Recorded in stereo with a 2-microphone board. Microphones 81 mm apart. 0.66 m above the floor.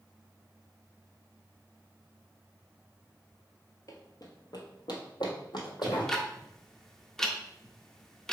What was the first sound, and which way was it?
Running footsteps, 45° left (ahead or behind).